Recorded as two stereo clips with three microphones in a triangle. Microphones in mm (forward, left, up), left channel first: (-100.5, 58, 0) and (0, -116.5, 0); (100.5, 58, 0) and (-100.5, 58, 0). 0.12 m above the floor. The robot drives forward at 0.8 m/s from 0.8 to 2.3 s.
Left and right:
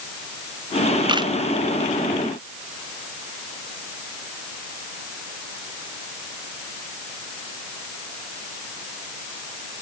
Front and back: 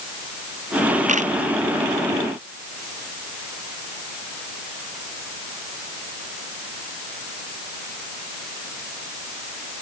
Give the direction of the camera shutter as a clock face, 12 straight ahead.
4 o'clock.